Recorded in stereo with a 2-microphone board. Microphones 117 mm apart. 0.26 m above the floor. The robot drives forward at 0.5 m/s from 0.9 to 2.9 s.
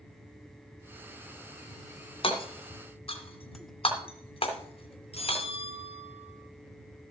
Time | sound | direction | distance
2.2 | hammering | 50° left (ahead or behind) | 2.5 m
5.1 | a bell | 60° left (ahead or behind) | 3 m